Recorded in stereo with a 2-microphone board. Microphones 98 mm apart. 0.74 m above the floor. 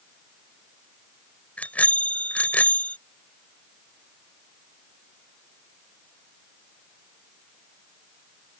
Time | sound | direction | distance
1.6 | a bicycle bell | 15° left (ahead or behind) | ?